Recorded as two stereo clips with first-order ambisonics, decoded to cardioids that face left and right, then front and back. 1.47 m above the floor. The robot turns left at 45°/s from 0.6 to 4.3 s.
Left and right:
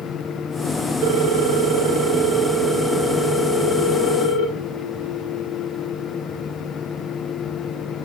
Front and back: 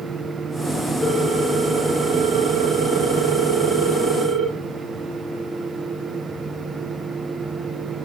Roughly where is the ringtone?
Right.